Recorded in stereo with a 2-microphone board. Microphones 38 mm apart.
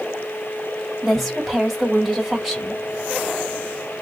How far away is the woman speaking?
About 1.7 m.